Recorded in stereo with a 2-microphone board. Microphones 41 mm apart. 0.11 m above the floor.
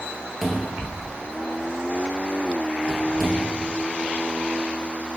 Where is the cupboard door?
5° left (ahead or behind), 1.3 m.